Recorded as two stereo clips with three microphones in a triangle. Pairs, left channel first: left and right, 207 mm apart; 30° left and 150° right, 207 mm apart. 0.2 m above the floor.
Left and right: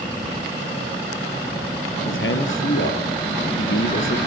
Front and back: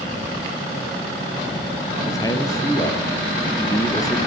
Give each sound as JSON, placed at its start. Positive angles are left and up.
{"t": 2.0, "sound": "a man speaking", "azimuth_deg": 105, "distance_m": 4.0}